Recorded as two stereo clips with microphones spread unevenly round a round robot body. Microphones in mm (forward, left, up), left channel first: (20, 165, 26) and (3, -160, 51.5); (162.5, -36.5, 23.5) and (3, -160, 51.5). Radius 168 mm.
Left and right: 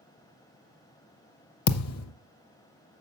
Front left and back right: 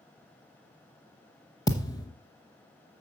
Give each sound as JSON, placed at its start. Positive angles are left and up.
{"t": 1.7, "sound": "a thud", "azimuth_deg": 120, "distance_m": 0.6}